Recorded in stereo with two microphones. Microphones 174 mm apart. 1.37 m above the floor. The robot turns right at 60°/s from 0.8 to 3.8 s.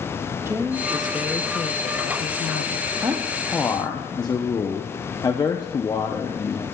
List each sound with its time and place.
0.5 s a woman speaking: 15° right, 0.7 m; by 2.9 s 115° left, 0.7 m
3.0 s a man speaking: 25° right, 0.6 m; by 6.6 s 20° left, 0.6 m